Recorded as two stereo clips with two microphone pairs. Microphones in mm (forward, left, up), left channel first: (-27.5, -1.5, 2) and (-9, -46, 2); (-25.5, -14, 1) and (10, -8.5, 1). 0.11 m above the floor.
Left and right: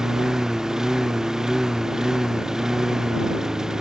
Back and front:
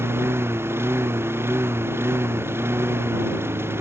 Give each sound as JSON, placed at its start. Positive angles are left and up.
{"t": 0.0, "sound": "a lawn mower", "azimuth_deg": 10}